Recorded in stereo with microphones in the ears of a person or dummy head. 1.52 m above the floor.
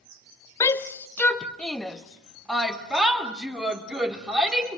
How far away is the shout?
About 1.0 m.